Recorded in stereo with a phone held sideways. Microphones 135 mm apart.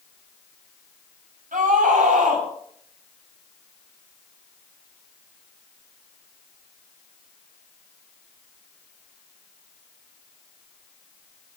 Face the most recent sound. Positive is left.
turn(degrees=-80)